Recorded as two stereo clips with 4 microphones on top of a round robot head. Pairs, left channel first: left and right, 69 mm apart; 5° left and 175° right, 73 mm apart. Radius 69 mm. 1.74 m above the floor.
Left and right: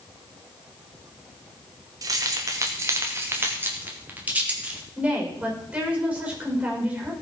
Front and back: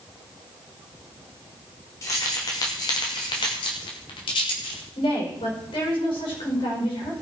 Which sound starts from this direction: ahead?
A woman speaking, at 5.0 s.